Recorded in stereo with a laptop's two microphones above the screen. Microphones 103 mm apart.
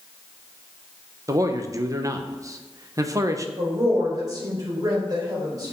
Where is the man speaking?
35° right (ahead or behind), 0.8 m.